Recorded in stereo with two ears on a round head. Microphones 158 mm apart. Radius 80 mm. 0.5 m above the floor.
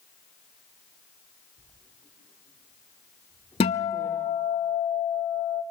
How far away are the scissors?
I don't hear scissors.